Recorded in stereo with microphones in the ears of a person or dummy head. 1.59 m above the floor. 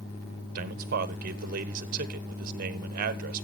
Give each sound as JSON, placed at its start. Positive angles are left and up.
{"t": 0.6, "sound": "a man speaking", "side_deg": -50, "distance_m": 1.2}